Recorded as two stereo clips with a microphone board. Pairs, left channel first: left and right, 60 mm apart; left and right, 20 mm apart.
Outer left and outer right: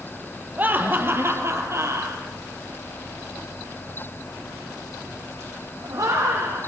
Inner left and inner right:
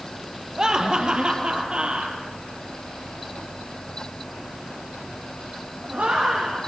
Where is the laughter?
30° right (ahead or behind), 3 m; by 6.7 s 80° right, 8.5 m.